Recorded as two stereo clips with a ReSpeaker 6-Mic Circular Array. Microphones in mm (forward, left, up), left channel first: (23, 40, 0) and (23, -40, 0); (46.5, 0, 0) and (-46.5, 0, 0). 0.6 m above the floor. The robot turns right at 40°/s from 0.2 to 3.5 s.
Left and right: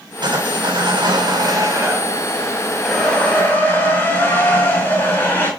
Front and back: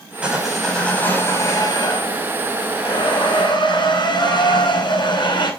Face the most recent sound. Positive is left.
turn(degrees=30)